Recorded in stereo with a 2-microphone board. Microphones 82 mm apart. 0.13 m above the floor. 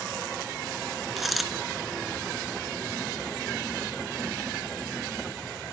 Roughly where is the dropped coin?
Centre.